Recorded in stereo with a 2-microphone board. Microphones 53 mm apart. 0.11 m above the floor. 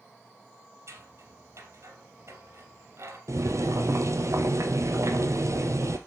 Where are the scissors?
60° right (ahead or behind), 2.5 m.